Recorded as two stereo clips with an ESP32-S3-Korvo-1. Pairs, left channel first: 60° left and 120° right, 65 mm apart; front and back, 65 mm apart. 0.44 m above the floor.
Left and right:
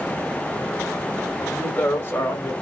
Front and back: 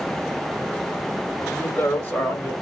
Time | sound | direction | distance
1.5 | a woman speaking | 5° left | 1.1 m